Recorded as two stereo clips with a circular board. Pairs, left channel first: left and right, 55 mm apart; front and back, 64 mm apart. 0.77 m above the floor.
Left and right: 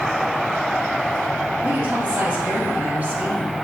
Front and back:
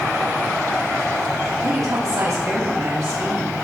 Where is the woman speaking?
150° right, 5 m.